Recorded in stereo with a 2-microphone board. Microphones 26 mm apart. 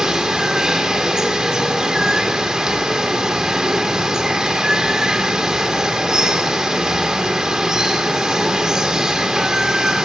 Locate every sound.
0.0 s running water: 25° right (ahead or behind), 2.5 m